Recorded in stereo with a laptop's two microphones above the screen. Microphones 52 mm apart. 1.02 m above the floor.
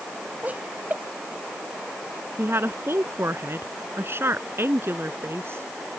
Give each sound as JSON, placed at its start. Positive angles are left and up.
{"t": 0.4, "sound": "laughter", "side_deg": -30}
{"t": 2.4, "sound": "a woman speaking", "side_deg": -55}